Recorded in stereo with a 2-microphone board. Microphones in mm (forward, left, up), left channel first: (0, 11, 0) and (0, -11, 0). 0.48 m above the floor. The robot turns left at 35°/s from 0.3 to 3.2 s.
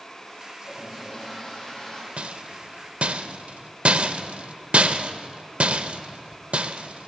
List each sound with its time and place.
0.6 s a toilet flushing: 175° right, 6.5 m; by 2.1 s 135° left, 6.5 m
2.2 s a rattle: 65° right (ahead or behind), 0.5 m; by 7.1 s 70° right (ahead or behind), 0.5 m